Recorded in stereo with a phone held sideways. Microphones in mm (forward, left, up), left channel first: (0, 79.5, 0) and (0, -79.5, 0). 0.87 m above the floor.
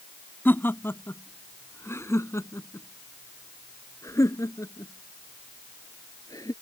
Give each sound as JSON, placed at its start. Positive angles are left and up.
{"t": 0.5, "sound": "laughter", "side_deg": 10}